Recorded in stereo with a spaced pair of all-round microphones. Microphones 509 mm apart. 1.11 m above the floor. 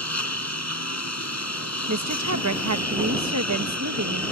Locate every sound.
0.0 s a lawn mower: 30° left (ahead or behind)
1.9 s a woman speaking: 35° right (ahead or behind)